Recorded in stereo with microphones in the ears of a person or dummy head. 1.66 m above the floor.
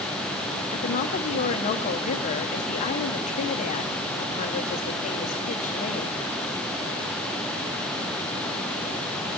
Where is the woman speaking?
40° left (ahead or behind), 1.1 m.